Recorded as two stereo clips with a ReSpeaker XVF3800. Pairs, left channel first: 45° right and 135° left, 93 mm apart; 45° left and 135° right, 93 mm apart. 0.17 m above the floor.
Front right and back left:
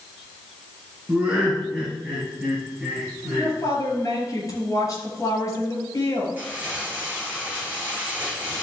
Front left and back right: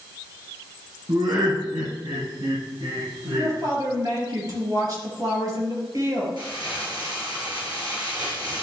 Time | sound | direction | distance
1.1 | laughter | 155° right | 2.5 m
3.4 | a woman speaking | 95° right | 4 m
6.4 | crumpling | 155° right | 4 m